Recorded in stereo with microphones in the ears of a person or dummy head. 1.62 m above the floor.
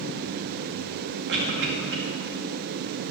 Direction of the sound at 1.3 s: 65° right (ahead or behind).